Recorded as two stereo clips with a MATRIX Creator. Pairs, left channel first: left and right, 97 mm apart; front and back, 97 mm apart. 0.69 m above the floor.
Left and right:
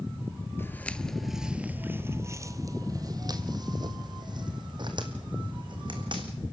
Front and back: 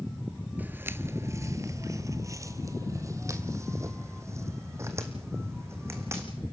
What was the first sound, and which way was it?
Footsteps, 125° left.